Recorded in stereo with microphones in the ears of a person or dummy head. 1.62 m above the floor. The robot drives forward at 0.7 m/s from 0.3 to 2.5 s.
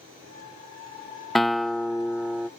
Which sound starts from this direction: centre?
A guitar, at 1.4 s.